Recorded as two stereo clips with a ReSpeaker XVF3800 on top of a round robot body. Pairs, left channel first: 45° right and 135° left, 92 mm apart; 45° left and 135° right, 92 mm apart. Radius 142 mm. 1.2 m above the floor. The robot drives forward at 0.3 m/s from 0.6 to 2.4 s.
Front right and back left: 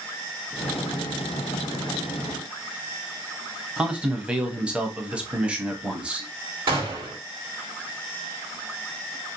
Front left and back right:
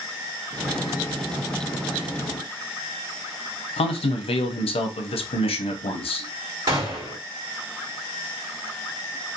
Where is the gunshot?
175° left, 1.4 m.